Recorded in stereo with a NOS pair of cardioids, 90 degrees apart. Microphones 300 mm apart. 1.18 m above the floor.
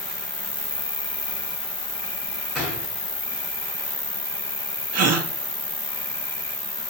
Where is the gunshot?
Straight ahead, 3.5 m.